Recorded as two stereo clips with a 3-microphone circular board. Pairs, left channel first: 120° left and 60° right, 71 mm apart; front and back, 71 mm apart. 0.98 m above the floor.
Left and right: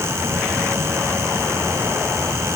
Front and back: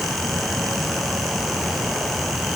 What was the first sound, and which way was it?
Only background noise.